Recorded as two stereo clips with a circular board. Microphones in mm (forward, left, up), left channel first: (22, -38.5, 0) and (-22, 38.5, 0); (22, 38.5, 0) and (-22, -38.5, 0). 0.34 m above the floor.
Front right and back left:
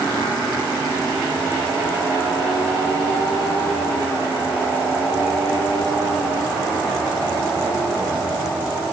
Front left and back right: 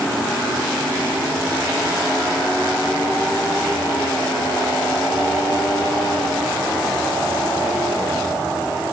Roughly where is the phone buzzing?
No phone buzzing in this recording.